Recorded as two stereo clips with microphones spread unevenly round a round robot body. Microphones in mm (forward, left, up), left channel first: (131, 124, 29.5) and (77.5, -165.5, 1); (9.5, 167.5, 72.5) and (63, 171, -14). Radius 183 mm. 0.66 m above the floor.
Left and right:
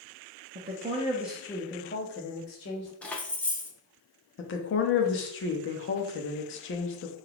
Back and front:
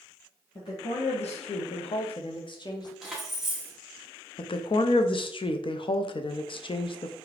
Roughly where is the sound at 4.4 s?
Left.